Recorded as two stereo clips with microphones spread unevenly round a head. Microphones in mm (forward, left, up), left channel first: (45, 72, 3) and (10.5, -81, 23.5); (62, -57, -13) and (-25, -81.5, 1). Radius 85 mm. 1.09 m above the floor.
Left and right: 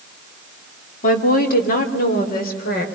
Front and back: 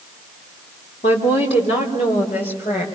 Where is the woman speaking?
45° left, 2.5 m; by 2.8 s 50° left, 4.5 m.